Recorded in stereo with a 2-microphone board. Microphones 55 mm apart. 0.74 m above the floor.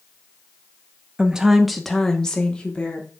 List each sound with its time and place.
1.2 s a woman speaking: 15° right (ahead or behind), 0.9 m; by 3.1 s 20° left (ahead or behind), 2.0 m